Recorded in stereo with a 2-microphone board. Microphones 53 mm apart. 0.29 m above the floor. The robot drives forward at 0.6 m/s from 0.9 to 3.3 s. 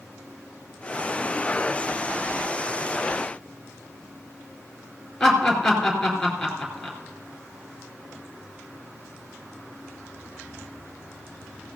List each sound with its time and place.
5.2 s laughter: 5° left (ahead or behind), 4 m